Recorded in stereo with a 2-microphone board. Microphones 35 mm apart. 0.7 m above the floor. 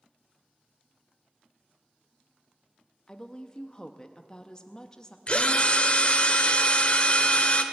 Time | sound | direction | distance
3.1 | a woman speaking | 20° left (ahead or behind) | 0.6 m
5.3 | a drill | 35° left (ahead or behind) | 0.9 m